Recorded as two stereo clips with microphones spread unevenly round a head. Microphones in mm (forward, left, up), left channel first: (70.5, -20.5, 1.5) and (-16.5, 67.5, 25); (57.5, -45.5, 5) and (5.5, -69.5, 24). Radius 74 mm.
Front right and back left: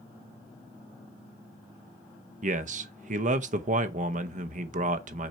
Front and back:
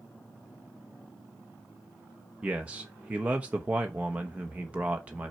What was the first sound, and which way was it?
A man speaking, 120° left.